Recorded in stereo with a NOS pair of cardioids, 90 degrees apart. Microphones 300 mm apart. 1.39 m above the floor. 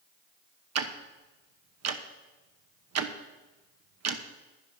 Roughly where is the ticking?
Ahead right.